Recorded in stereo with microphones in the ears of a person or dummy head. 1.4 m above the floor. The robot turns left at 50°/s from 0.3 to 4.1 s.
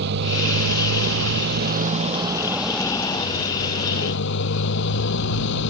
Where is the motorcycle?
60° right; by 5.7 s 110° left.